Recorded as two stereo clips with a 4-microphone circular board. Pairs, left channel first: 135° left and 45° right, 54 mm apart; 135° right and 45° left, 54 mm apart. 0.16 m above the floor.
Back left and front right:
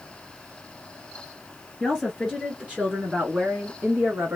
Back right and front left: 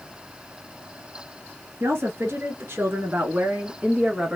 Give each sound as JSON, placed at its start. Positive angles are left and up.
{"t": 1.8, "sound": "a woman speaking", "azimuth_deg": 45, "distance_m": 2.0}